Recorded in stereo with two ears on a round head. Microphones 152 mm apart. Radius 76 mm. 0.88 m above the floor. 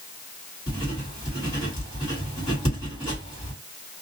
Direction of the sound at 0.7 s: 25° left (ahead or behind).